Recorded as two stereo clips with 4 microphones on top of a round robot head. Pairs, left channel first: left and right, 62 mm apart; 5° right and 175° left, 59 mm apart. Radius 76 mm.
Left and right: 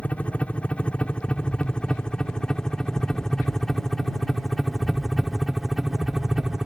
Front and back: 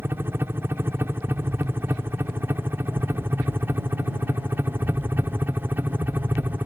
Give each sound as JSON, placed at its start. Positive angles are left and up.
{"t": 0.0, "sound": "a helicopter", "azimuth_deg": 150}
{"t": 1.3, "sound": "an explosion", "azimuth_deg": 160}